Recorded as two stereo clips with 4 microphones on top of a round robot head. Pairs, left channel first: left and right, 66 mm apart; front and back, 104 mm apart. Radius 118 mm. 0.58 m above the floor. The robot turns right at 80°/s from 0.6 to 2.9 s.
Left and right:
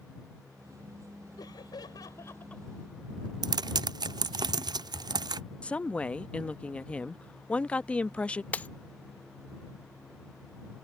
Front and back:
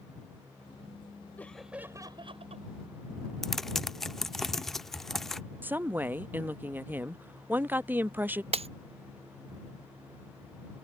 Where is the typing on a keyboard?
85° right.